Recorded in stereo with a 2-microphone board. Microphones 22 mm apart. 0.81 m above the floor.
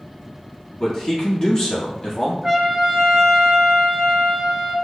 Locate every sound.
0.8 s a man speaking: 20° left (ahead or behind), 1.4 m
2.4 s a trumpet: 25° right (ahead or behind), 1.0 m